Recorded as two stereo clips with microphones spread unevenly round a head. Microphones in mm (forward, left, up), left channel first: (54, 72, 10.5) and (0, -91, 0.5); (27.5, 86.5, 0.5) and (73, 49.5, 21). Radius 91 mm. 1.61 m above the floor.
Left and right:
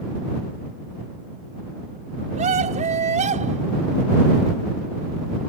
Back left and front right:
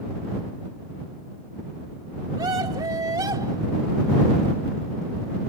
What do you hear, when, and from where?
2.4 s a scream: 60° right